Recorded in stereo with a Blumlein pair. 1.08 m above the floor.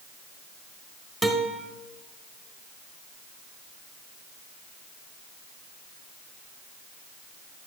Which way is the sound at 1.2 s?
5° left.